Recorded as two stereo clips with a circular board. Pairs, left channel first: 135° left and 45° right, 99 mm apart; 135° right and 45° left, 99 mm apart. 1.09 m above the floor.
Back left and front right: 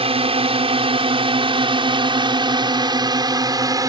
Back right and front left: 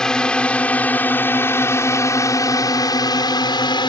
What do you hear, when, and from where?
0.0 s a drone: 50° right; by 3.9 s 95° right